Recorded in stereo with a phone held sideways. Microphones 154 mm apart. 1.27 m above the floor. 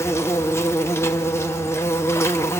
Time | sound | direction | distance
0.0 | an insect | 15° left (ahead or behind) | 0.9 m